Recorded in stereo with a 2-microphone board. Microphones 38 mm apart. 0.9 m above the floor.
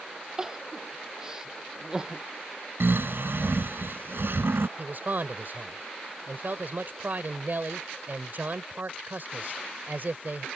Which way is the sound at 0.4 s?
20° right (ahead or behind).